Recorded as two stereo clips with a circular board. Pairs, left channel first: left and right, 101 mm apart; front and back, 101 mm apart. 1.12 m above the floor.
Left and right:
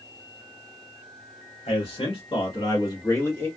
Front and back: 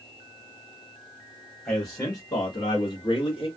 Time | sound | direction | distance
1.6 | a man speaking | 70° left | 1.4 m